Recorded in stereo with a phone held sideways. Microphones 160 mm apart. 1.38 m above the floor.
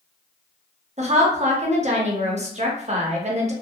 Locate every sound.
1.0 s a woman speaking: 45° right (ahead or behind), 0.7 m